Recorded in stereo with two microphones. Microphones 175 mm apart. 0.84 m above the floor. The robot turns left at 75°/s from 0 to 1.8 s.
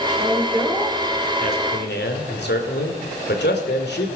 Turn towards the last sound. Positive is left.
turn(degrees=95)